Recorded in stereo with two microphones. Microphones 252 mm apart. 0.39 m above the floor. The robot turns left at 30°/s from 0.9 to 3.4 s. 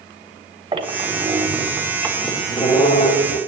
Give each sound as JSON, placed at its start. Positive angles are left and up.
{"t": 0.7, "sound": "a squeak", "azimuth_deg": -155, "distance_m": 1.2}